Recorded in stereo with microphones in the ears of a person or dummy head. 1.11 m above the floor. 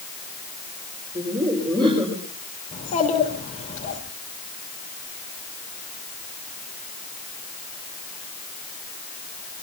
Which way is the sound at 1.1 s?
25° right (ahead or behind).